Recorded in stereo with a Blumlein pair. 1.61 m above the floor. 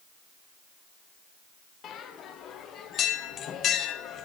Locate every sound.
1.8 s a bell: 30° left, 0.9 m